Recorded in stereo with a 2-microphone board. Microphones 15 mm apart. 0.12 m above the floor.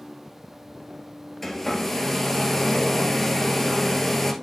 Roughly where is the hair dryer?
Centre.